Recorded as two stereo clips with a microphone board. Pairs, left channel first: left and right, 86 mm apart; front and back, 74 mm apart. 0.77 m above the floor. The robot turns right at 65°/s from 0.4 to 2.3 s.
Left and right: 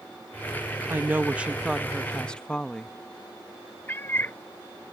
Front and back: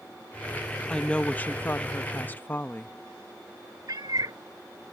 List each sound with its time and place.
0.9 s a woman speaking: 65° right; by 3.0 s 25° left
3.9 s a cat meowing: 155° left